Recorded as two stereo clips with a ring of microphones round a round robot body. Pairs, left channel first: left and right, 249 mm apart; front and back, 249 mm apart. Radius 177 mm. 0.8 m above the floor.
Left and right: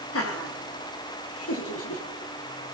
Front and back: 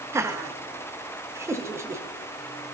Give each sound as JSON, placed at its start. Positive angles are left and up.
{"t": 0.1, "sound": "laughter", "azimuth_deg": 100, "distance_m": 1.7}